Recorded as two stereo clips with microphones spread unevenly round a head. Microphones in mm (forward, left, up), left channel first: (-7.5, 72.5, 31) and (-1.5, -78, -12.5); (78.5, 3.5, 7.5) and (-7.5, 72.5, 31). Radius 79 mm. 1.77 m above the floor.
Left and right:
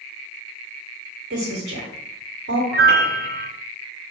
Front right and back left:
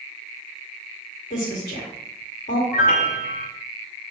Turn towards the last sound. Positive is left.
turn(degrees=-55)